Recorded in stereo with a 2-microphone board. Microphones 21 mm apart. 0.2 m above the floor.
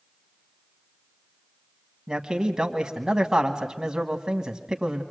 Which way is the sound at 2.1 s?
30° right (ahead or behind).